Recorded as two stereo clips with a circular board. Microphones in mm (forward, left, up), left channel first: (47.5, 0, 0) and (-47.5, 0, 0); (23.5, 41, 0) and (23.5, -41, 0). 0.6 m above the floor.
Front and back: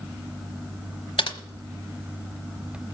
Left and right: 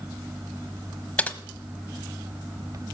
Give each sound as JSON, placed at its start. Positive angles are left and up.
{"t": 1.2, "sound": "typing on a keyboard", "azimuth_deg": 15, "distance_m": 1.1}